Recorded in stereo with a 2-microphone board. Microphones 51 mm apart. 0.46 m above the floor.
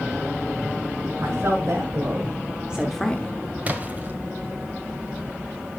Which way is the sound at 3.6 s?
30° right (ahead or behind).